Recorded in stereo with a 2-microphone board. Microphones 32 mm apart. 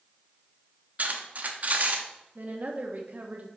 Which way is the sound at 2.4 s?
55° right (ahead or behind).